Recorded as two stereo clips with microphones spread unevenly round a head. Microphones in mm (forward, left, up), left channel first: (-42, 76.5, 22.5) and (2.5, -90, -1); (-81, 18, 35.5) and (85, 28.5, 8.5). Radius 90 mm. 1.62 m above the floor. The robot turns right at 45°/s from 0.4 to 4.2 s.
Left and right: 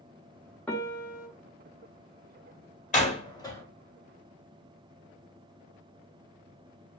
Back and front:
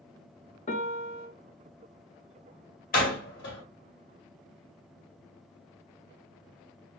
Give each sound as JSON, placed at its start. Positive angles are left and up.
{"t": 0.7, "sound": "a piano", "azimuth_deg": 180, "distance_m": 1.0}
{"t": 2.9, "sound": "a door slam", "azimuth_deg": 150, "distance_m": 2.0}